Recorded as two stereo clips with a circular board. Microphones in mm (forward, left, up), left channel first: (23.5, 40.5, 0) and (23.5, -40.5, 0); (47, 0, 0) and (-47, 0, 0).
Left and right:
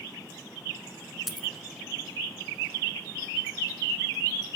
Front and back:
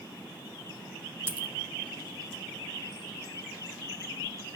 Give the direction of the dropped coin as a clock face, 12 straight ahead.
6 o'clock.